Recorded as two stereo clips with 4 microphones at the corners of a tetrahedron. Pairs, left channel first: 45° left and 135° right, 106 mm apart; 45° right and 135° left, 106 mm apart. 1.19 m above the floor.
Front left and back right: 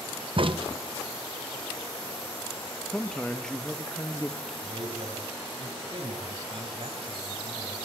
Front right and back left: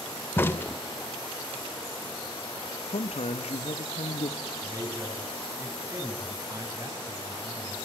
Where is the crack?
110° right, 1.2 m.